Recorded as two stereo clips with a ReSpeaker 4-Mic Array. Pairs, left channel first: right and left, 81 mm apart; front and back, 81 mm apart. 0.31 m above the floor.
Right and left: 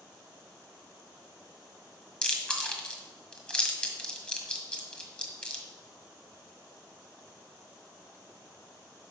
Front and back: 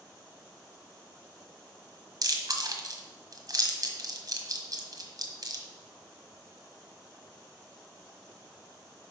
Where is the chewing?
165° right, 1.6 m.